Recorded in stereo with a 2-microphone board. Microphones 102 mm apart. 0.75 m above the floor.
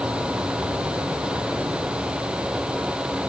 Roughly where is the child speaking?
I don't hear a child speaking.